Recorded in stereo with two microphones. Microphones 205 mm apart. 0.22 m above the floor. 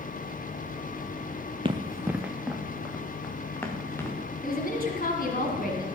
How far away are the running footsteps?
About 0.9 m.